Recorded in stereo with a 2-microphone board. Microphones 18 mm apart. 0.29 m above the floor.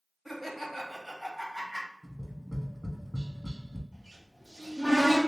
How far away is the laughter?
About 1.2 m.